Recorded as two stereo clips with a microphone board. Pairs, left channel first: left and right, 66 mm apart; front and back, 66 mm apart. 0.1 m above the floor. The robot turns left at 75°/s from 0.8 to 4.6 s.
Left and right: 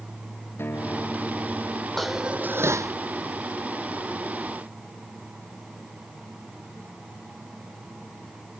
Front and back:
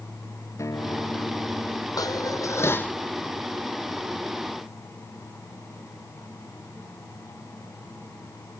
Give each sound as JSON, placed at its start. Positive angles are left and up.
{"t": 0.6, "sound": "a guitar", "azimuth_deg": 35}
{"t": 2.0, "sound": "dishes clattering", "azimuth_deg": 5}